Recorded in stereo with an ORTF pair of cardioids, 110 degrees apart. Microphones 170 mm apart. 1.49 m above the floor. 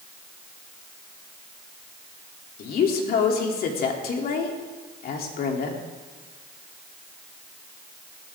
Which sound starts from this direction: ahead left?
A woman speaking, at 2.6 s.